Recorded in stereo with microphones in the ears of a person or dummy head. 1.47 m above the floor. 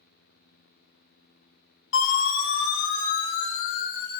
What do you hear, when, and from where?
1.9 s a siren: 80° left, 5.5 m; by 4.2 s 55° left (ahead or behind), 5.5 m